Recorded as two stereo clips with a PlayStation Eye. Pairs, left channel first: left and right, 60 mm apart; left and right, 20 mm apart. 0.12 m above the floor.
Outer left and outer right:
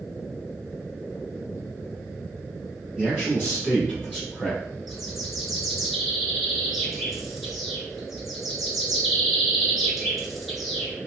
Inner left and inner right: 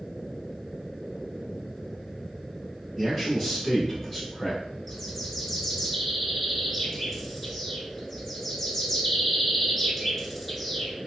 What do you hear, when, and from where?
3.0 s a man speaking: 20° right (ahead or behind), 1.8 m; by 4.6 s 5° right (ahead or behind), 2 m
4.9 s a bird: centre (ahead or behind), 0.9 m